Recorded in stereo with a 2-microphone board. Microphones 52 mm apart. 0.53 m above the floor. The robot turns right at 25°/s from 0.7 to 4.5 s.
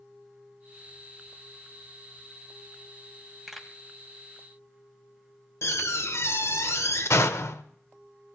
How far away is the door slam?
About 1.0 m.